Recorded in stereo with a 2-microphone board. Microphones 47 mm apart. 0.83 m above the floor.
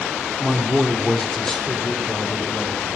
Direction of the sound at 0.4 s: 15° right (ahead or behind).